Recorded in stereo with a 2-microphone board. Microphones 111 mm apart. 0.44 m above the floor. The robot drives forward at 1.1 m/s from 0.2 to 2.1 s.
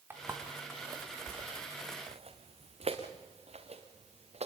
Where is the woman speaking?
I don't hear a woman speaking.